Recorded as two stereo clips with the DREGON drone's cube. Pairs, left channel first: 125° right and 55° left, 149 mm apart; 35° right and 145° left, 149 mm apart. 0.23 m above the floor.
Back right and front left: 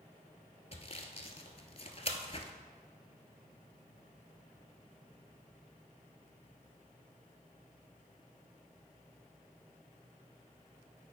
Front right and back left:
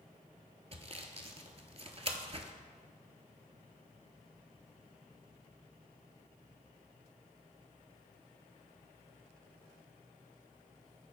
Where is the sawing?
170° right, 0.7 m.